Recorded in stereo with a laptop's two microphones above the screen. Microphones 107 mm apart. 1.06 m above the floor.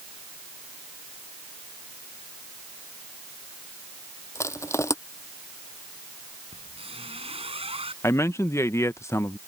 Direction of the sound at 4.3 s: 25° left (ahead or behind).